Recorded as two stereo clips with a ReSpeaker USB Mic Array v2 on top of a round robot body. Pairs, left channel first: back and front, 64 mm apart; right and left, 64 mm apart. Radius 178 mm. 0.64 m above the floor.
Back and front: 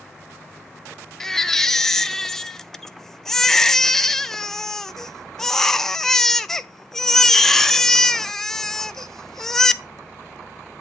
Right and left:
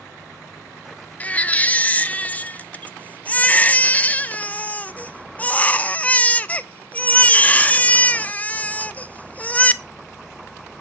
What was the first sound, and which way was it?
A baby crying, 105° right.